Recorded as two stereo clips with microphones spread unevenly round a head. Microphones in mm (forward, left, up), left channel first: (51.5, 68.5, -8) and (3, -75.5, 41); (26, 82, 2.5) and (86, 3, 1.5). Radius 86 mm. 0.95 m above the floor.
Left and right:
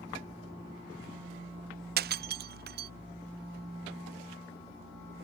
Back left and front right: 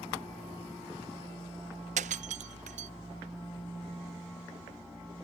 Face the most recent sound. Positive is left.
turn(degrees=-85)